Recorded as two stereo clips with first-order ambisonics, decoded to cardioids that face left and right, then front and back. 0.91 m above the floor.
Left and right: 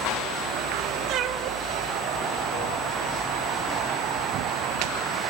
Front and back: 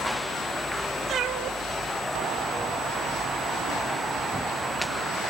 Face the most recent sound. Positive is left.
turn(degrees=90)